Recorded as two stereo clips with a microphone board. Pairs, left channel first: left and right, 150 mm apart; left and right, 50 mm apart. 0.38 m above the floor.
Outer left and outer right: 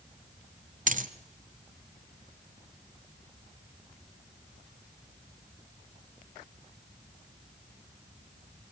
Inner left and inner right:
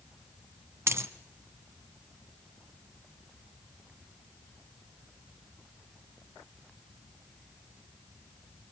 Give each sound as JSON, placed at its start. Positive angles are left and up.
{"t": 0.9, "sound": "a dropped coin", "side_deg": -65, "distance_m": 1.2}